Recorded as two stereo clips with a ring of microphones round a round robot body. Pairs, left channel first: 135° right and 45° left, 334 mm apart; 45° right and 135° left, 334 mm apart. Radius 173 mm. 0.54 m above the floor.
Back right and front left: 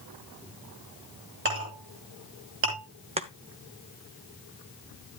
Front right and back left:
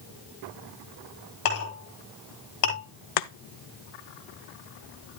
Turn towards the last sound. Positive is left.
turn(degrees=-25)